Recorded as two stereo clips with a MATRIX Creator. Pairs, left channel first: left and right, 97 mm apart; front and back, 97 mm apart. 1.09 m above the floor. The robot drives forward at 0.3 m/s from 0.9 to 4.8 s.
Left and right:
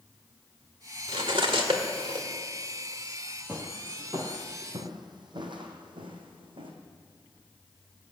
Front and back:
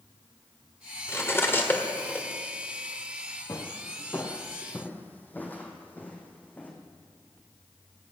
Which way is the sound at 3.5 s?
30° right.